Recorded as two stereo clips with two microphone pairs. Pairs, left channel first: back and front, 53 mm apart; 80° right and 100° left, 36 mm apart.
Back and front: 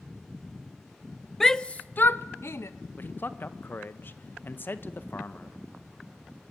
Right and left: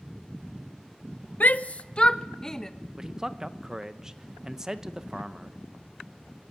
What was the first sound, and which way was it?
A shout, 100° right.